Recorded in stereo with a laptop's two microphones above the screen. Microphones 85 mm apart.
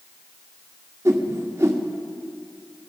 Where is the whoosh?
35° right (ahead or behind), 1.4 m.